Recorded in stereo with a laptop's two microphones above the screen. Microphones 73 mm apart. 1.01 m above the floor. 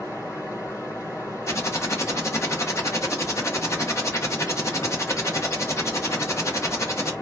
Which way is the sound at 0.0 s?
40° left (ahead or behind).